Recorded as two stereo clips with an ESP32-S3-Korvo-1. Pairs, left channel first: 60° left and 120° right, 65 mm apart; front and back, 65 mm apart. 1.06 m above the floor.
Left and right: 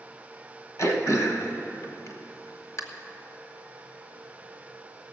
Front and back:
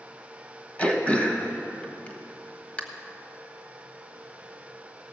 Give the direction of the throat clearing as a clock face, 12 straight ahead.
10 o'clock.